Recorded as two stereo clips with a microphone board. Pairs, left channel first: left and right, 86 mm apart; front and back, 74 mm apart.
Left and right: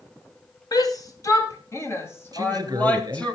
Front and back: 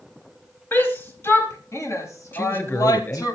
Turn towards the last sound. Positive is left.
turn(degrees=-55)